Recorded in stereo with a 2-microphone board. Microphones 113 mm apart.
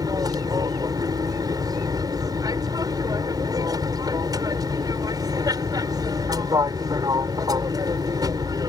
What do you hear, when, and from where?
0.0 s an aircraft: 35° right (ahead or behind)